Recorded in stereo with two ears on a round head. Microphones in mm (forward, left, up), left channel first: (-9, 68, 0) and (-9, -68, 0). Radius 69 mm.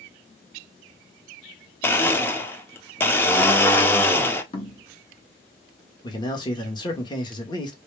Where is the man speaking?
30° left (ahead or behind), 1.4 m.